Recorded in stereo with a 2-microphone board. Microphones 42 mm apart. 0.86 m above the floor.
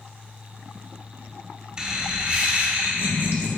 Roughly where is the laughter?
Centre.